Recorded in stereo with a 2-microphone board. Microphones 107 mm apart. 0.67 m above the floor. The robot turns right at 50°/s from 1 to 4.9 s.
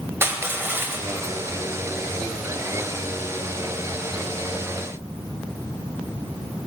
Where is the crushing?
20° right (ahead or behind), 0.6 m; by 1.4 s 35° right (ahead or behind), 0.6 m.